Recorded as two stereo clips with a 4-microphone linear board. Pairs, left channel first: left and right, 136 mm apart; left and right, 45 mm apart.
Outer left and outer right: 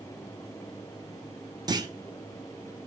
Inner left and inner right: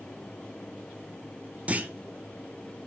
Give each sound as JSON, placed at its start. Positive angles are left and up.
{"t": 1.7, "sound": "a clunk", "side_deg": -30, "distance_m": 0.9}